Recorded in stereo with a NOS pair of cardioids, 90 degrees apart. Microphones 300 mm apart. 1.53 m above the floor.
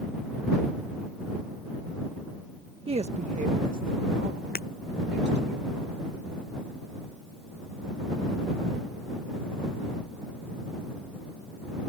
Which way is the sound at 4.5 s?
30° left.